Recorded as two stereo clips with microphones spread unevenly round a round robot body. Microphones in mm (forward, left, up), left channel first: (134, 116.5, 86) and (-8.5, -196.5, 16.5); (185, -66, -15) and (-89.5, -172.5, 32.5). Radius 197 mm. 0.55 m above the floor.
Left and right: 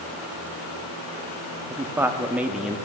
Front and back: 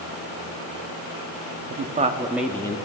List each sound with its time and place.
1.7 s a man speaking: 165° right, 0.7 m; by 2.8 s 40° right, 0.9 m